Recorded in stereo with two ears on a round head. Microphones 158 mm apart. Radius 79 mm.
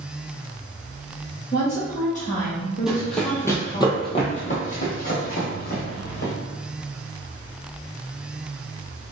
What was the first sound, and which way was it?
A woman speaking, 35° left (ahead or behind).